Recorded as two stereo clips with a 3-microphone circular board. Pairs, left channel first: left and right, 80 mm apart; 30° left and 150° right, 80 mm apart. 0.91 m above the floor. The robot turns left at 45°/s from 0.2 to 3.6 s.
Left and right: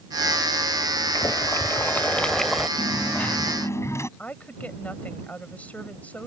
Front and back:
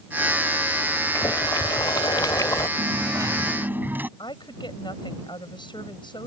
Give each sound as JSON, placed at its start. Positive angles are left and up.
{"t": 1.1, "sound": "boiling", "azimuth_deg": 65}
{"t": 2.8, "sound": "a dropped coin", "azimuth_deg": 180}
{"t": 4.2, "sound": "a woman speaking", "azimuth_deg": 20}